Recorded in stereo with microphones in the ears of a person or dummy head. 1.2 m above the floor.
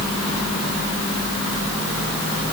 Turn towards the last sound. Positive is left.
No sound to turn to.